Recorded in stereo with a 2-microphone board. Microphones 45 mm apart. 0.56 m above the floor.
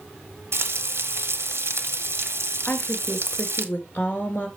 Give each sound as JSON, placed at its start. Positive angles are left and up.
{"t": 0.5, "sound": "frying", "side_deg": -70, "distance_m": 1.1}
{"t": 2.6, "sound": "a woman speaking", "side_deg": 45, "distance_m": 1.9}